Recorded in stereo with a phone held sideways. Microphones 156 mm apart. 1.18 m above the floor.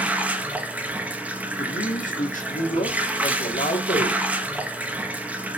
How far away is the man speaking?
About 2.5 m.